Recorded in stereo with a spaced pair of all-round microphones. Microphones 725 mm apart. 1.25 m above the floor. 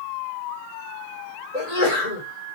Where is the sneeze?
55° left (ahead or behind), 4.5 m.